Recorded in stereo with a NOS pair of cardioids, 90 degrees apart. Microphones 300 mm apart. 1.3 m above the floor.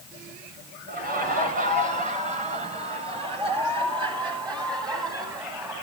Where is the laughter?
30° right, 7.5 m; by 5.7 s 10° right, 10.5 m.